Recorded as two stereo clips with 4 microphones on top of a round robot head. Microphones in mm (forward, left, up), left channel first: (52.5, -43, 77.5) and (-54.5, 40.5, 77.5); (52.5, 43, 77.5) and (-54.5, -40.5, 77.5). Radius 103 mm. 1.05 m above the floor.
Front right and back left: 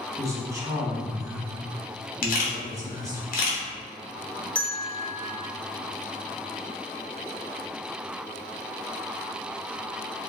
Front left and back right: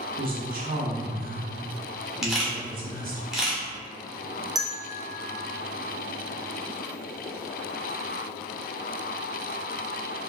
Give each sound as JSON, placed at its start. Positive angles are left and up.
{"t": 0.2, "sound": "a woman speaking", "azimuth_deg": -150, "distance_m": 1.2}
{"t": 2.2, "sound": "a camera shutter", "azimuth_deg": -55, "distance_m": 1.0}
{"t": 4.5, "sound": "a bell", "azimuth_deg": -110, "distance_m": 0.8}